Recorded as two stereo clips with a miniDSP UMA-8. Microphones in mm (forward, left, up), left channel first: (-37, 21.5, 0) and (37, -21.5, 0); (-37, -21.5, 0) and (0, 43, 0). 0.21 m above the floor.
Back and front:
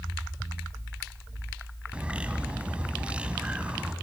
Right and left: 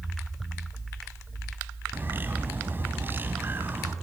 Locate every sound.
1.9 s a bird: 35° left, 1.3 m